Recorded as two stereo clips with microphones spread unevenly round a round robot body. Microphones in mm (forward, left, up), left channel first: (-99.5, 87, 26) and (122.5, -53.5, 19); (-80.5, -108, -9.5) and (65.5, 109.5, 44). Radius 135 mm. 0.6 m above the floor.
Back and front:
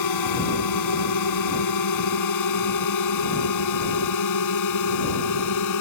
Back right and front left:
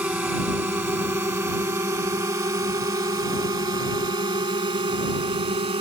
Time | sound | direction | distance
0.0 | a drone | 140° left | ?